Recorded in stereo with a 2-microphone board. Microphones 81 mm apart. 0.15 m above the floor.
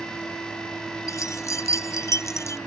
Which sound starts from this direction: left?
Keys jangling, at 1.1 s.